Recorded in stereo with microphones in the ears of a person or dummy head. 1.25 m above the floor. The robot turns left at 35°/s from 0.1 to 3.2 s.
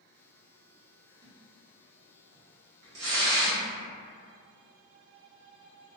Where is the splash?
20° right (ahead or behind), 1.0 m; by 3.6 s 70° right (ahead or behind), 1.0 m.